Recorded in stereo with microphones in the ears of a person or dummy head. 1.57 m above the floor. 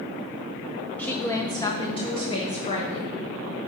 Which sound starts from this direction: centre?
A woman speaking, at 1.0 s.